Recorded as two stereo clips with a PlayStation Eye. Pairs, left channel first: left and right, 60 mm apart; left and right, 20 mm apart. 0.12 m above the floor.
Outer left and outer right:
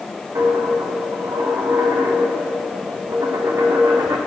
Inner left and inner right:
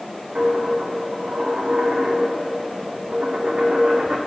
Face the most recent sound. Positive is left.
turn(degrees=-60)  # may be behind; listen again after turning